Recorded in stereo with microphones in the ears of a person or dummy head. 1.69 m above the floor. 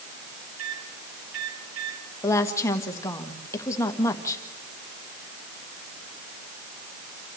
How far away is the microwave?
About 5 m.